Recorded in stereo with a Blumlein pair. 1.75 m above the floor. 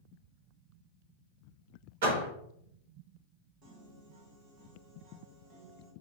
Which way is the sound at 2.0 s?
55° right.